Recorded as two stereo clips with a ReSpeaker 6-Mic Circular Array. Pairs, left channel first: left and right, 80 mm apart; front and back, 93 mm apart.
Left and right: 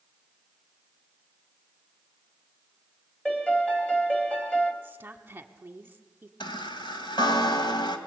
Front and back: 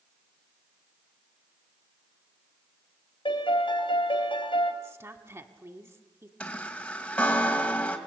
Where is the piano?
15° left, 2.5 m.